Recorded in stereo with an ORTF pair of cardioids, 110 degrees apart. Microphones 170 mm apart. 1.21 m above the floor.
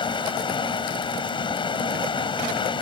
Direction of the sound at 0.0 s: 30° left.